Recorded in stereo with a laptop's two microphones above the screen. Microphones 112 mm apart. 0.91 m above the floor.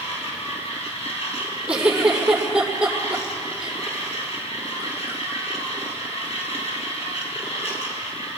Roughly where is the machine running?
Left.